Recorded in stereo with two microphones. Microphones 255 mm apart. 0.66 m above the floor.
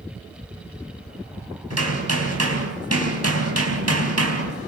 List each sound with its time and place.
1.7 s hammering: 75° right (ahead or behind), 4.5 m